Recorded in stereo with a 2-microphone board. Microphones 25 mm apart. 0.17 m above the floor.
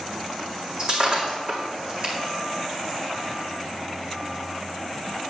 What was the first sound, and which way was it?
Breaking glass, 35° right (ahead or behind).